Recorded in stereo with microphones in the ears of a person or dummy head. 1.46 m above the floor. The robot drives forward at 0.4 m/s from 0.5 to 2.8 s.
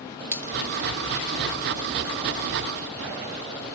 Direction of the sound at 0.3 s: 15° right (ahead or behind).